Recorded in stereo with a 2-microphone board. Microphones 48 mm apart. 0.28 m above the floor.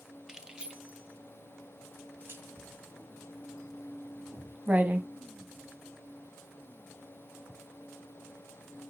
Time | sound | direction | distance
0.3 | keys jangling | 10° right (ahead or behind) | 1.1 m
2.6 | writing | 35° right (ahead or behind) | 1.4 m